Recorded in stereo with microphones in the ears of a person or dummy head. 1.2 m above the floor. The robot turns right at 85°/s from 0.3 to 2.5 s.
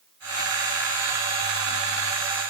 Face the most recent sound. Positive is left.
No sound to turn to.